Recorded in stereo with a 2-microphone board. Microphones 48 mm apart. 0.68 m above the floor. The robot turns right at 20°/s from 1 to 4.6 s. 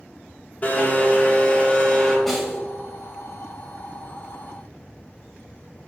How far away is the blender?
About 1.4 m.